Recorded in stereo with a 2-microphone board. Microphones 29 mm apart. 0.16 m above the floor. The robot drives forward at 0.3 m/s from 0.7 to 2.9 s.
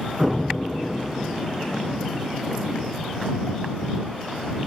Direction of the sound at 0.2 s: 25° right (ahead or behind).